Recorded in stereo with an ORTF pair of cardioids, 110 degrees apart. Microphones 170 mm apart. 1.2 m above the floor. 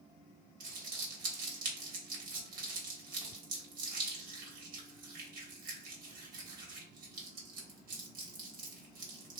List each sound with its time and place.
0.6 s crumpling: 65° right, 1.1 m